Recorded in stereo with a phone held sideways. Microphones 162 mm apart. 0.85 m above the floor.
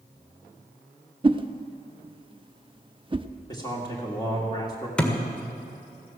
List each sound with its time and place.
1.2 s a whoosh: 30° right (ahead or behind), 0.6 m
3.5 s a man speaking: 25° left (ahead or behind), 1.9 m
5.0 s a thud: 5° left (ahead or behind), 1.5 m